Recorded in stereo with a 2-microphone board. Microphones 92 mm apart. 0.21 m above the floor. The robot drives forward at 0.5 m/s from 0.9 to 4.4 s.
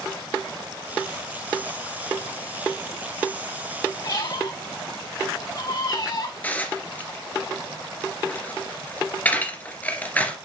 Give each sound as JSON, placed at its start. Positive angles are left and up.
{"t": 4.0, "sound": "a squeak", "side_deg": 40, "distance_m": 3.0}
{"t": 6.4, "sound": "dishes clattering", "side_deg": 15, "distance_m": 2.0}